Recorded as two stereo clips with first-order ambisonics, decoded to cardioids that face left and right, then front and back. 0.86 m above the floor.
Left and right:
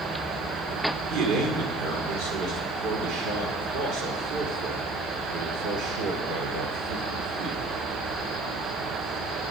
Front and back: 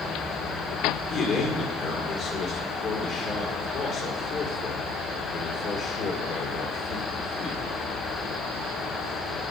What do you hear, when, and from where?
1.1 s a man speaking: 60° right, 2 m